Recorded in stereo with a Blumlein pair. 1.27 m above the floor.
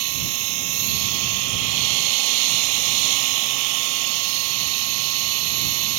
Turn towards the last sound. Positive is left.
turn(degrees=-45)